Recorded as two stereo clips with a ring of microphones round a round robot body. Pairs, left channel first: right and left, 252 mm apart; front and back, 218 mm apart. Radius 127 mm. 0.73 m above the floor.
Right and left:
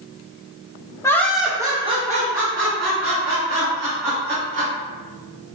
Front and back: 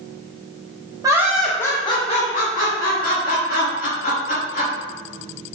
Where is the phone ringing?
No phone ringing in this recording.